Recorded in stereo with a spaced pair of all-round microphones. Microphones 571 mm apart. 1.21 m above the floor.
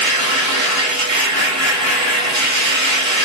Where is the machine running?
20° left (ahead or behind), 1.2 m.